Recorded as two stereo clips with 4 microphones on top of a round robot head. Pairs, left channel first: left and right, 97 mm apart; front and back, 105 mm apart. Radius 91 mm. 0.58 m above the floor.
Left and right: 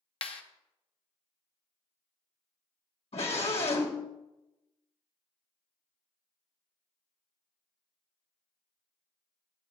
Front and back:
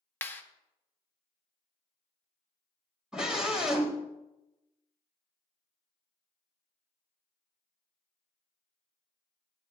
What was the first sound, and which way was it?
A clap, 70° left.